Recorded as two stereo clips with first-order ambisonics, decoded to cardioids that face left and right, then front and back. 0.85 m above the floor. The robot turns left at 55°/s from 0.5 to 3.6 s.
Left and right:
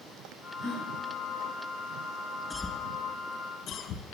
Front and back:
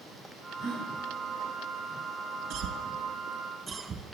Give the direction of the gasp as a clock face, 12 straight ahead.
7 o'clock.